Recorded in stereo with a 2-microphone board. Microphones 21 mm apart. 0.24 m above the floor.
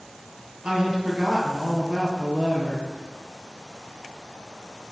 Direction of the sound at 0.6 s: 55° right (ahead or behind).